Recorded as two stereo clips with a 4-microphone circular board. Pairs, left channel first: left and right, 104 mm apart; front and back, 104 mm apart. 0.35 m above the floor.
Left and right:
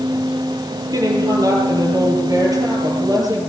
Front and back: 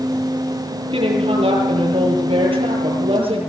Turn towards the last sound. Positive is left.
turn(degrees=-145)